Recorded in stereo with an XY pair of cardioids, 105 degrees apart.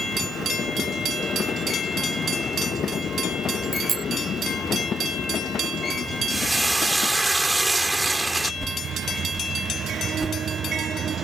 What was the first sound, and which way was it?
A bicycle bell, 35° right.